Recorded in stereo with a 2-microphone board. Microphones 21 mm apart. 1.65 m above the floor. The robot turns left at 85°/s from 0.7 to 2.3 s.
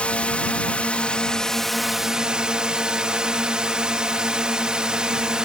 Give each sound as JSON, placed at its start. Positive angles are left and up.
{"t": 0.0, "sound": "a drone", "azimuth_deg": 95}